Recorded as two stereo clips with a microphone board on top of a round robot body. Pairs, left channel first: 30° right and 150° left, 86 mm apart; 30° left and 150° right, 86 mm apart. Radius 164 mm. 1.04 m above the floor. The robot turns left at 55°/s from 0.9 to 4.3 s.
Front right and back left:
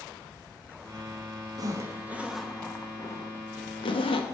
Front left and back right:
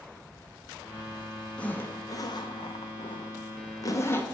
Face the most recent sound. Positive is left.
turn(degrees=-40)